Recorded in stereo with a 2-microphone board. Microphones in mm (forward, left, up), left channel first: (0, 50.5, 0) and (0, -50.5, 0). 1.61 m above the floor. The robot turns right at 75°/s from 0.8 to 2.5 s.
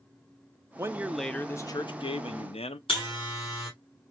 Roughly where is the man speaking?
Ahead right.